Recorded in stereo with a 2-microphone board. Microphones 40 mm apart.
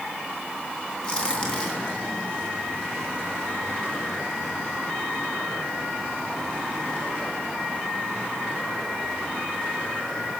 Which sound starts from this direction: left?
A crack, at 1.0 s.